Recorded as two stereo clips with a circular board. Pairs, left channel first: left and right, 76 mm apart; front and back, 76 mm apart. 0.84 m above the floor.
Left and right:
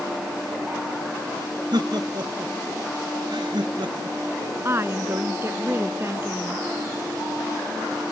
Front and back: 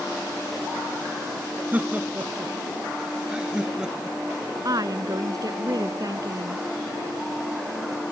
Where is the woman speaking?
145° right.